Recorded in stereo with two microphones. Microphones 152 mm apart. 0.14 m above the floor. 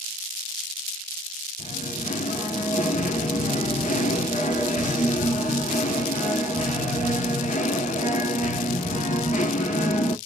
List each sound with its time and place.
1.6 s singing: 55° left (ahead or behind), 0.8 m